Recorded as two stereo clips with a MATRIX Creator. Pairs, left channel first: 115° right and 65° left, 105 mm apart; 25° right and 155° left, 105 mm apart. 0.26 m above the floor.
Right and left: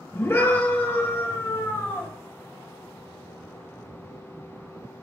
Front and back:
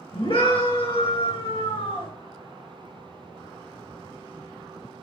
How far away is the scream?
About 3.5 m.